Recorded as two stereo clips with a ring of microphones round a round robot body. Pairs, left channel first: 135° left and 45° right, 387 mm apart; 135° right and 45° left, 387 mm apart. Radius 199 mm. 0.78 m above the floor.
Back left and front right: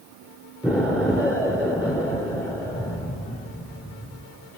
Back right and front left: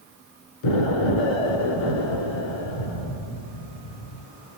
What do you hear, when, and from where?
0.6 s an explosion: 130° right, 2.5 m